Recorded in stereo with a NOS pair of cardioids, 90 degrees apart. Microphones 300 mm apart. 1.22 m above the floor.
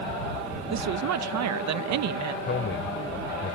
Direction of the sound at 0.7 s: 65° right.